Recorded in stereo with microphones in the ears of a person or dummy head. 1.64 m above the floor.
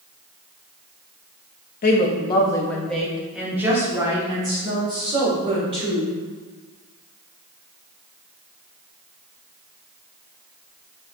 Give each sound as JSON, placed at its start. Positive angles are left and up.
{"t": 1.8, "sound": "a woman speaking", "side_deg": 45, "distance_m": 0.7}